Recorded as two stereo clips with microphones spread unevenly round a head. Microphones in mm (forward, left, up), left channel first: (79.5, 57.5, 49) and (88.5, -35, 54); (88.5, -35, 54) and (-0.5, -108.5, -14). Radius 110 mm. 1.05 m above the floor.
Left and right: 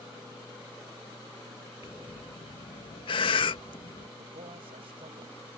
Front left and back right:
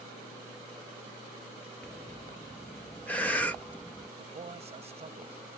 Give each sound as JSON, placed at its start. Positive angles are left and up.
{"t": 1.8, "sound": "breathing", "azimuth_deg": 130}
{"t": 4.2, "sound": "a man speaking", "azimuth_deg": -125}